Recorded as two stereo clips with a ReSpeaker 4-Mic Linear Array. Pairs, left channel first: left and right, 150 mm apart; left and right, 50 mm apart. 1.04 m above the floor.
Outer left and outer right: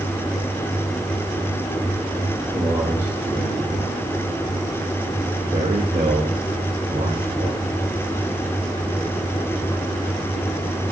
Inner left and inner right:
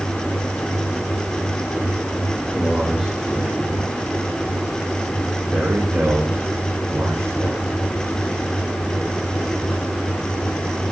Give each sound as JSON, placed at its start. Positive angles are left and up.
{"t": 2.5, "sound": "a man speaking", "side_deg": -10, "distance_m": 6.0}